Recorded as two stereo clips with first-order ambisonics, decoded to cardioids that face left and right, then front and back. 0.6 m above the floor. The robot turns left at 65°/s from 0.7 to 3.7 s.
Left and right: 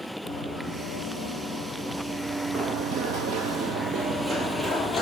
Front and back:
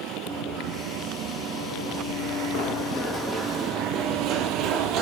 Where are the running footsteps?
115° left, 2.5 m; by 5.0 s 170° left, 0.9 m.